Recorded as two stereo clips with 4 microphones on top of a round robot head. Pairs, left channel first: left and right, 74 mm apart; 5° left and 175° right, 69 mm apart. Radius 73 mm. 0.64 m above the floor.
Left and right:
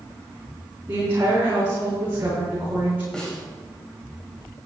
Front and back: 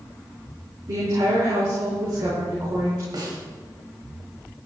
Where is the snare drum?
170° left, 4 m.